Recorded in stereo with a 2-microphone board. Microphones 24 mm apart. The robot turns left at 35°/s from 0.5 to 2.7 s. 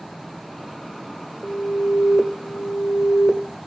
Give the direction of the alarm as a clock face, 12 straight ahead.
8 o'clock.